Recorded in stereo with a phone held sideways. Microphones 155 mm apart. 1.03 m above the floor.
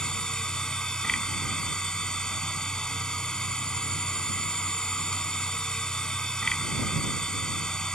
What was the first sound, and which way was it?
A machine running, 5° left (ahead or behind).